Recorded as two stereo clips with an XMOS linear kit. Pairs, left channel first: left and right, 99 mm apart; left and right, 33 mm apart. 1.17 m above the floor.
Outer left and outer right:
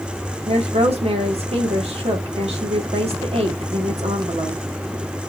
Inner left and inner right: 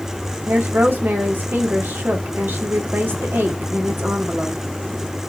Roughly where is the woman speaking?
Right.